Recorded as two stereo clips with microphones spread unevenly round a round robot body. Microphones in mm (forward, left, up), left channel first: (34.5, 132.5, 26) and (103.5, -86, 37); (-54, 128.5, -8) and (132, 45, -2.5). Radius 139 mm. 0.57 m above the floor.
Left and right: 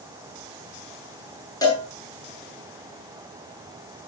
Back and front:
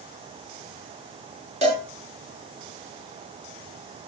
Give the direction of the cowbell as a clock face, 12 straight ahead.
11 o'clock.